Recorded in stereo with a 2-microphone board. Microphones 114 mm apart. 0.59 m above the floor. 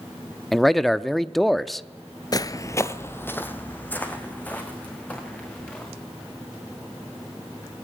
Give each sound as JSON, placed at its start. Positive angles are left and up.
{"t": 0.5, "sound": "a man speaking", "side_deg": 0, "distance_m": 0.6}
{"t": 2.3, "sound": "footsteps", "side_deg": 35, "distance_m": 0.6}